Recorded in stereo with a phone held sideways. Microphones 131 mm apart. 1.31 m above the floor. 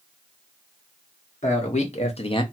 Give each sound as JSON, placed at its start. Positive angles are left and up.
{"t": 1.4, "sound": "a man speaking", "side_deg": 60, "distance_m": 1.3}